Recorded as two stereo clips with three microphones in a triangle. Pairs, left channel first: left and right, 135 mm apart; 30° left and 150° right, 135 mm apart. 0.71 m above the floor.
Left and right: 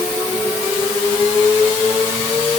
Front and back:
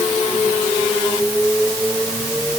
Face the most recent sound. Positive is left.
No sound to turn to.